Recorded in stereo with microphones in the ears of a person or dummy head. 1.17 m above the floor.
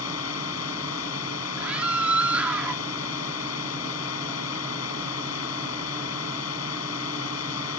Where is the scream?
10° right (ahead or behind).